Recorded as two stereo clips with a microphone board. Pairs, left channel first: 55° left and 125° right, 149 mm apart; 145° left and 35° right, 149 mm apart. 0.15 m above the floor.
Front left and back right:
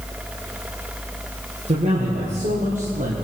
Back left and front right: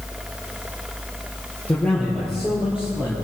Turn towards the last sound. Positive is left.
turn(degrees=-110)